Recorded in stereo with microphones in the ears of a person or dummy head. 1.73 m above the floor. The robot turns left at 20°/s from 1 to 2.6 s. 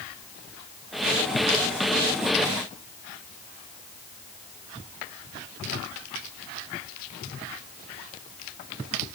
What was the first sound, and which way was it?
Only background noise.